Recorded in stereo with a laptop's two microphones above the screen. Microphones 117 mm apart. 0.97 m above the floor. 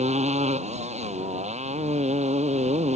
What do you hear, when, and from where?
0.0 s a motorcycle: 75° right (ahead or behind)